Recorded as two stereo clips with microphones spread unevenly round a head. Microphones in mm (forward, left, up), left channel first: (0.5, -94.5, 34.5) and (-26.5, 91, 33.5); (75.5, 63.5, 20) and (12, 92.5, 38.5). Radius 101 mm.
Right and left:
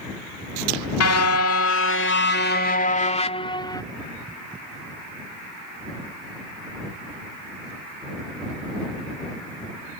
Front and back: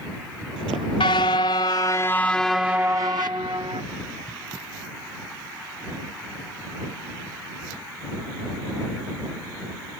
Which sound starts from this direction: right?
A car horn, at 1.0 s.